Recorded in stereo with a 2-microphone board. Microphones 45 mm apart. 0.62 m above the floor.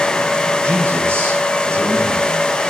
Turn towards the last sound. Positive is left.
turn(degrees=-75)  # may be behind; listen again after turning